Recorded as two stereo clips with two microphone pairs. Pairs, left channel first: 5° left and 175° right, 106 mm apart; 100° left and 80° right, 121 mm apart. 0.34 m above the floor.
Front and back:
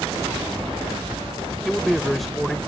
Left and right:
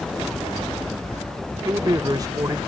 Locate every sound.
1.6 s a man speaking: 85° right